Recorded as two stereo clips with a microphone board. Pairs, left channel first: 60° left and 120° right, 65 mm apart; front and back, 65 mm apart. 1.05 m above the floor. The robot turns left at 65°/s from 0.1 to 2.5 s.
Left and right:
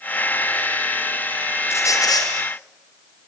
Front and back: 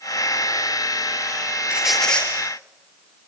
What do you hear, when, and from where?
1.7 s a squeak: 105° left, 7 m; by 2.3 s 70° left, 7 m